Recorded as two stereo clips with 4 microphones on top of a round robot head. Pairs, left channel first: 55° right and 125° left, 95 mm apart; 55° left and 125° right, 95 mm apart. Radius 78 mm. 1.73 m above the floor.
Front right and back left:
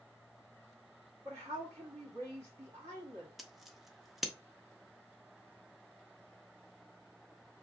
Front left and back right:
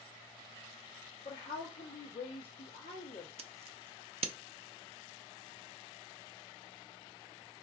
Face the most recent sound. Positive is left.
turn(degrees=-145)